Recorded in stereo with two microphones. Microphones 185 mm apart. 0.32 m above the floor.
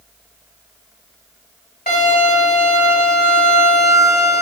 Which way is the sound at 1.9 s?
50° left (ahead or behind).